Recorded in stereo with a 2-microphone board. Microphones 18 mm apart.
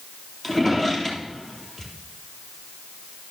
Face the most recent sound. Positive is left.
turn(degrees=20)  # may be behind; listen again after turning